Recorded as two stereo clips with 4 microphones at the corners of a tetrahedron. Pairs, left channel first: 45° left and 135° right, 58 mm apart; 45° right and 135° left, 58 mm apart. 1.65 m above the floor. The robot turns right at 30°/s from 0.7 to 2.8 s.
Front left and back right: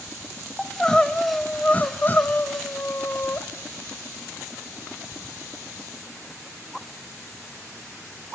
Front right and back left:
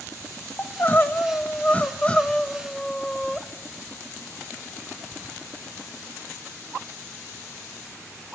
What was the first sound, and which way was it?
Crying, 30° right.